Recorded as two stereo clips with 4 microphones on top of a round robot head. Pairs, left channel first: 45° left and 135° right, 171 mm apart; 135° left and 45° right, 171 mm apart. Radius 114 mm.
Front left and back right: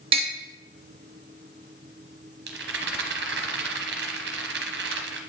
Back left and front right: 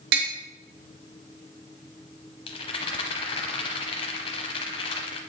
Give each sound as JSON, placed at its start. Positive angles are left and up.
{"t": 0.1, "sound": "tapping", "azimuth_deg": -75, "distance_m": 1.1}
{"t": 2.5, "sound": "a rattle", "azimuth_deg": -165, "distance_m": 0.7}